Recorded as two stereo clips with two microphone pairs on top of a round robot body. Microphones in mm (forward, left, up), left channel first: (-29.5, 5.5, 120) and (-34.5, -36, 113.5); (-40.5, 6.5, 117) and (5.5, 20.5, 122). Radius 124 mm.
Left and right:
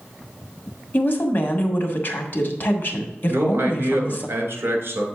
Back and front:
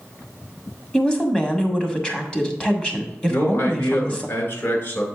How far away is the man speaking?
About 2.5 m.